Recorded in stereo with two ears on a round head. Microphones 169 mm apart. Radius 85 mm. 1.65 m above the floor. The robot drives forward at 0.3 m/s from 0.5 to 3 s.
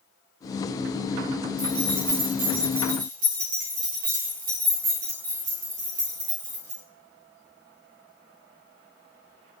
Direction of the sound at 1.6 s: 60° right (ahead or behind).